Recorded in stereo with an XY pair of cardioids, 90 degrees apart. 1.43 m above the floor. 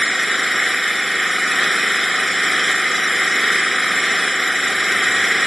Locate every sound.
0.0 s an engine running: straight ahead